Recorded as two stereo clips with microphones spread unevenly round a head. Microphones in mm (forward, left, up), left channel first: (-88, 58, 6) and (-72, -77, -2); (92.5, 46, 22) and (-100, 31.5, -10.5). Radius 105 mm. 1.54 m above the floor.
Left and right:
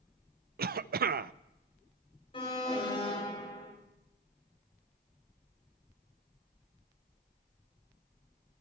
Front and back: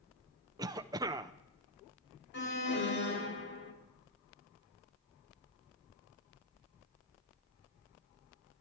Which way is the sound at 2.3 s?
30° left.